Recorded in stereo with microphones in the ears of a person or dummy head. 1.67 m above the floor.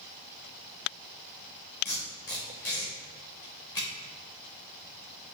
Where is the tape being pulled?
10° left (ahead or behind), 0.9 m.